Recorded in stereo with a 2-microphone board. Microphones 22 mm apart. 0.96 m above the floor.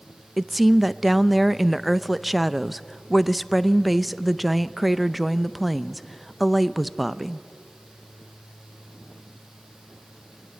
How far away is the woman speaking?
About 0.6 m.